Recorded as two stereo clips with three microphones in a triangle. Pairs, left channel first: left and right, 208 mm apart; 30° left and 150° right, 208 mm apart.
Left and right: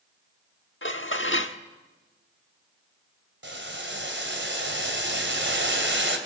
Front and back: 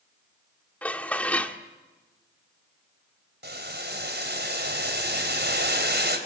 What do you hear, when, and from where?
0.8 s dishes clattering: 110° left, 1.2 m
3.4 s boiling: 115° right, 3.5 m